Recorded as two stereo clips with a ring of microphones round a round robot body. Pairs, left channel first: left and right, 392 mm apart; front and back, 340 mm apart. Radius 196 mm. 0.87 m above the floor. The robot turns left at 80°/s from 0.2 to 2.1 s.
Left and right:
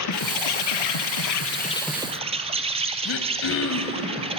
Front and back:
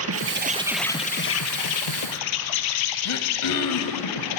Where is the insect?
135° left, 1.8 m; by 4.4 s 15° right, 1.8 m.